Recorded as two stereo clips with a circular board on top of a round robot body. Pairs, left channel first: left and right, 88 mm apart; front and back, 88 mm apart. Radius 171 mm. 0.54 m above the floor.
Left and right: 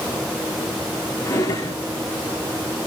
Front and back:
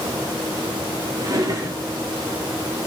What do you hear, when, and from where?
1.2 s a drawer: 140° left, 6 m